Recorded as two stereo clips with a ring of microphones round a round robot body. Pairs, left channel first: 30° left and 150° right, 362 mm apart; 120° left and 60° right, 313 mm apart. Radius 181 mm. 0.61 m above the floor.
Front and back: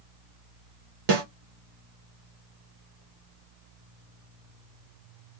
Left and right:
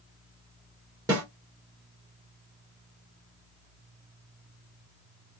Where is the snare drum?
140° right, 1.5 m.